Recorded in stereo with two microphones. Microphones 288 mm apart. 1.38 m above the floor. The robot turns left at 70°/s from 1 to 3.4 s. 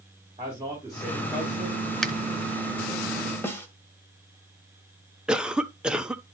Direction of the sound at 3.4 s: 10° left (ahead or behind).